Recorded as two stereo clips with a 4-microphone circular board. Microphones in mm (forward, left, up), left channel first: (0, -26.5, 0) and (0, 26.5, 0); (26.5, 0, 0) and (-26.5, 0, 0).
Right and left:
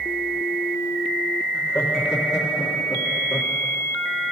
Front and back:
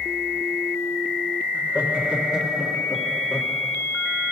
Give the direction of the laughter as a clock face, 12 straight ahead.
4 o'clock.